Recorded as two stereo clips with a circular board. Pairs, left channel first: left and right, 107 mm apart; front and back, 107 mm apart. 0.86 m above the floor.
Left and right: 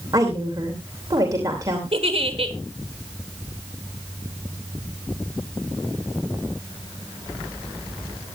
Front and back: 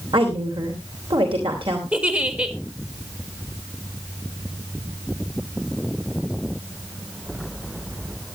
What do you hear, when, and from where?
0.1 s a woman speaking: 145° right, 3 m
1.9 s a giggle: 105° right, 1.9 m